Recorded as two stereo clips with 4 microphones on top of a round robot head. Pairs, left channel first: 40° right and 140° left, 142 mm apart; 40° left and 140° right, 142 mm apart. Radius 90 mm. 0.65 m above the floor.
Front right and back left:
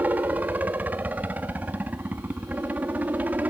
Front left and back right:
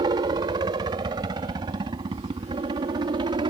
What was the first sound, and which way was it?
A helicopter, 150° right.